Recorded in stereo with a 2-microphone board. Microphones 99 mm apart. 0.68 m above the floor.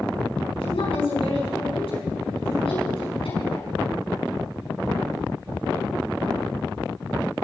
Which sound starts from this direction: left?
A woman speaking, at 0.6 s.